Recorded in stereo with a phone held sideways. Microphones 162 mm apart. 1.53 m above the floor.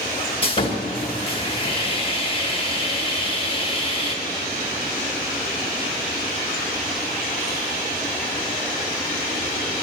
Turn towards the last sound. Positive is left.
turn(degrees=35)  # may be behind; listen again after turning